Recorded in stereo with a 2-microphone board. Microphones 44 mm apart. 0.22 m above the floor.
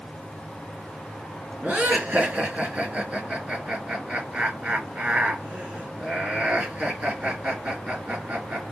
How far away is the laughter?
About 3 m.